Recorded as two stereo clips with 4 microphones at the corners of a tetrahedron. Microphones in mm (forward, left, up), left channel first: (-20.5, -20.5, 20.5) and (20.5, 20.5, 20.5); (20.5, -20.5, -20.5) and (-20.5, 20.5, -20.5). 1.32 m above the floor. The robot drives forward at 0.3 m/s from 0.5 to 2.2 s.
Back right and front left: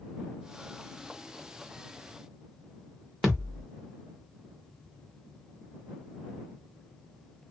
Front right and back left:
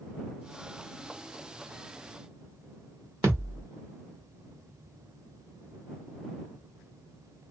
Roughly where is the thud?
Behind left.